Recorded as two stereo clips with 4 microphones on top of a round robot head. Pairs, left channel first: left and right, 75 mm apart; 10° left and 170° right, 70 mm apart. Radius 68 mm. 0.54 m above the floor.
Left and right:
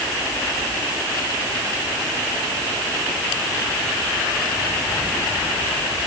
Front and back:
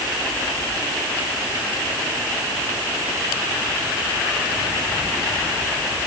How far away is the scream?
I don't hear a scream.